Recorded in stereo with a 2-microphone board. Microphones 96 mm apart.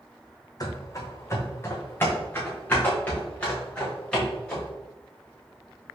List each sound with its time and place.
0.6 s running footsteps: 40° left (ahead or behind), 1.0 m; by 4.7 s 10° left (ahead or behind), 3 m